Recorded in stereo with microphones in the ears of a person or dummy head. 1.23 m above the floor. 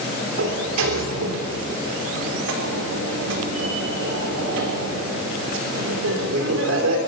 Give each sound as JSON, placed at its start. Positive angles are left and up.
{"t": 0.4, "sound": "a sliding door", "side_deg": -70, "distance_m": 3.0}